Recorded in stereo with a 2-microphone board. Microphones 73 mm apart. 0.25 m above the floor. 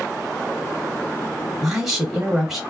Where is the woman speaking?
5° right (ahead or behind), 1.5 m.